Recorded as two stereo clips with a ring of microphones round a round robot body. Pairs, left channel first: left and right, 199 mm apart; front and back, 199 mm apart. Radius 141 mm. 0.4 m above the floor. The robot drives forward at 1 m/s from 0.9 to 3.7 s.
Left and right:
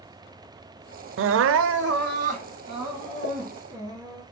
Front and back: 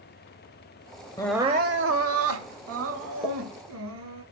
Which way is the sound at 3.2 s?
95° left.